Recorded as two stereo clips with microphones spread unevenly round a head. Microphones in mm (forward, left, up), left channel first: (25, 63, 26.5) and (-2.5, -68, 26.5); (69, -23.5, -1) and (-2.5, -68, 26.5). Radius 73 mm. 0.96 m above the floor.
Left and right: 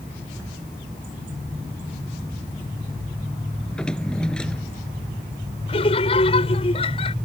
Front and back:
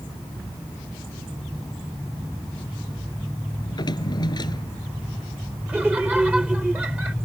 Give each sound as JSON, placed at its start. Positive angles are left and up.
{"t": 3.6, "sound": "a drawer", "azimuth_deg": -5}
{"t": 5.7, "sound": "laughter", "azimuth_deg": 130}